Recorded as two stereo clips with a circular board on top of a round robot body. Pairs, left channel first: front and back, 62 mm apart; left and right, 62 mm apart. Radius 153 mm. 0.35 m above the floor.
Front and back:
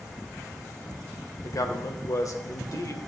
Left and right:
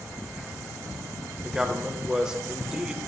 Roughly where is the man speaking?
Ahead.